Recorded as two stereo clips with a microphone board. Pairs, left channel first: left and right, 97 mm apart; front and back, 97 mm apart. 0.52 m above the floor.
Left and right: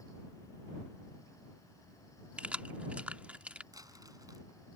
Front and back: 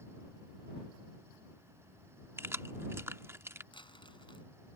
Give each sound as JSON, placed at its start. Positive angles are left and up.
{"t": 2.4, "sound": "keys jangling", "azimuth_deg": -150}
{"t": 3.7, "sound": "crumpling", "azimuth_deg": -35}